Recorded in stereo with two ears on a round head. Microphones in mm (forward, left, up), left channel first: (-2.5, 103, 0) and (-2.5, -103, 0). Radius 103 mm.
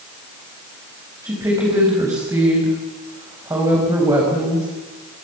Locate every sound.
1.2 s a woman speaking: 15° right (ahead or behind), 5.5 m